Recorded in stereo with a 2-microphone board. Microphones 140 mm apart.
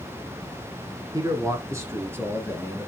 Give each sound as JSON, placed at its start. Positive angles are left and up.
{"t": 1.1, "sound": "a man speaking", "side_deg": -25, "distance_m": 1.7}